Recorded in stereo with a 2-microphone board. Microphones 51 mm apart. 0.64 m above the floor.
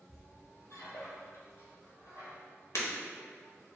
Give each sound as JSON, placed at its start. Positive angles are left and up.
{"t": 0.1, "sound": "a squeak", "side_deg": 60, "distance_m": 1.1}
{"t": 2.8, "sound": "breaking glass", "side_deg": 65, "distance_m": 0.6}